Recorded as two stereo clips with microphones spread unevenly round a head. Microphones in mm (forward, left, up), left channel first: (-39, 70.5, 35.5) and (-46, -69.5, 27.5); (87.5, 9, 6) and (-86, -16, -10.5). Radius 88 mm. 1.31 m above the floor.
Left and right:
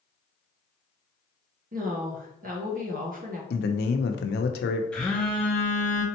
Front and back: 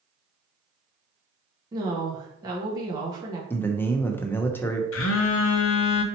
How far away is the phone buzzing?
About 0.5 m.